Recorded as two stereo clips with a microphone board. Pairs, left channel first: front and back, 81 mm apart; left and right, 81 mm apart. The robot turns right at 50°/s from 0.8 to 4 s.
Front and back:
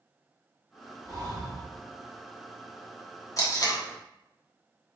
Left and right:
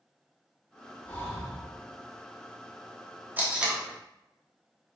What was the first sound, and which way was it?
Breathing, 145° left.